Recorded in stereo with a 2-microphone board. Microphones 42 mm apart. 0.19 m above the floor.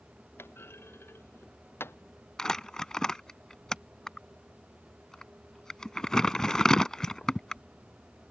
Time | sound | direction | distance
0.4 | a clunk | 75° left (ahead or behind) | ?
2.4 | crumpling | 15° left (ahead or behind) | ?